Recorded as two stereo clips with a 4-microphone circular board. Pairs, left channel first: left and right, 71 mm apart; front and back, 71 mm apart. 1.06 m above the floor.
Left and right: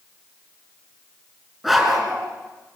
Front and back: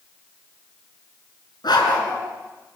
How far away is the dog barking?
About 3.5 m.